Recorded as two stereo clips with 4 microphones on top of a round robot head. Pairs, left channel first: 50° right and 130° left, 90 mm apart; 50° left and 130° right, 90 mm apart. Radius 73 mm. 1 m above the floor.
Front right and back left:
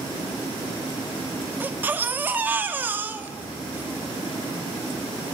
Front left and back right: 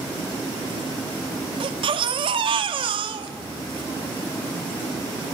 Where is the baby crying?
160° right, 1.3 m.